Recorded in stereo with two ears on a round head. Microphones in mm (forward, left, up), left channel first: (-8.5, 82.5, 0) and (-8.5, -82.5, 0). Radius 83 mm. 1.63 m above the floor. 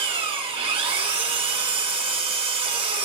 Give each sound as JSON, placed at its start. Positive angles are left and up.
{"t": 0.0, "sound": "an engine running", "side_deg": -30, "distance_m": 3.5}